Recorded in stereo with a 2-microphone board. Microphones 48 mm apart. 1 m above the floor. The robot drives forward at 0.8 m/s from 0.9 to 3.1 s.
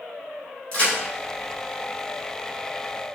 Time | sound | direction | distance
0.7 | a crack | 25° left (ahead or behind) | 2 m